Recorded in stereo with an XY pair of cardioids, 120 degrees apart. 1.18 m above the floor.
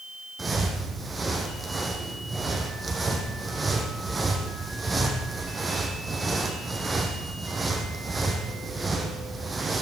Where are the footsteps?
20° right, 3.5 m.